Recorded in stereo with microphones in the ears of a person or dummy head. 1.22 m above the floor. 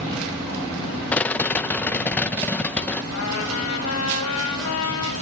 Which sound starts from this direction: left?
A trumpet, at 3.1 s.